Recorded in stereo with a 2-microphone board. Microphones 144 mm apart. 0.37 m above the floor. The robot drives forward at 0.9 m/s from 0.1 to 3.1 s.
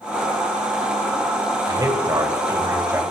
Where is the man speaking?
25° right (ahead or behind), 1.6 m; by 3.0 s 20° right (ahead or behind), 2.5 m.